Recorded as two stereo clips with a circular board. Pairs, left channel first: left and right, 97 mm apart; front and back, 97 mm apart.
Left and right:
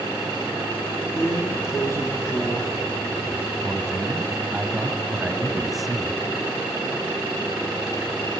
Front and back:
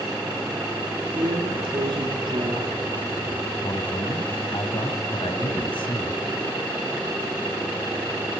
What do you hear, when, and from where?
1.1 s a drawer: 150° left, 2.5 m
3.6 s a man speaking: straight ahead, 2 m